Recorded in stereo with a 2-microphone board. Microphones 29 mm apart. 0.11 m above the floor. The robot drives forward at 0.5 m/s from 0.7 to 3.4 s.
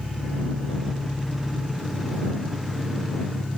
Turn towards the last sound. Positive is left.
turn(degrees=-30)  # may be behind; listen again after turning